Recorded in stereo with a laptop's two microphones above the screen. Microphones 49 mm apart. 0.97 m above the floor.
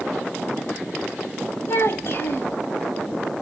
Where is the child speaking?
55° left (ahead or behind), 3 m.